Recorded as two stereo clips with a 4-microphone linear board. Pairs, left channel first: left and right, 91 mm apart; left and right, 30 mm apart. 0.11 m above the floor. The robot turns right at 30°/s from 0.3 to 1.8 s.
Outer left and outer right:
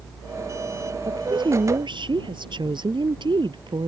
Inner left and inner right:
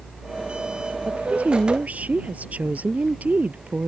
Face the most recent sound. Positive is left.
turn(degrees=-55)  # may be behind; listen again after turning